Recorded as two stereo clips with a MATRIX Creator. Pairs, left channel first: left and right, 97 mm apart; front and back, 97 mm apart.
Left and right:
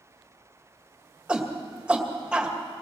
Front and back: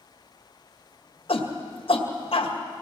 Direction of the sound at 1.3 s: 10° right.